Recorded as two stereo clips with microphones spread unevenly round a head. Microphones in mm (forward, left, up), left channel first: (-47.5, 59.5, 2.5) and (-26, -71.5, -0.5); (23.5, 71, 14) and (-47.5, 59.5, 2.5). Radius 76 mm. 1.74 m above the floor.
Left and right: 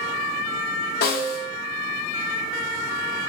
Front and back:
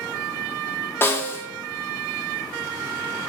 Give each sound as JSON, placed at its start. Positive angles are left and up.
{"t": 1.0, "sound": "a snare drum", "azimuth_deg": 70, "distance_m": 0.7}